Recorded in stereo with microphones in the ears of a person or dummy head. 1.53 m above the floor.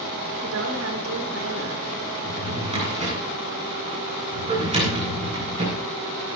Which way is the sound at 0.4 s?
85° right.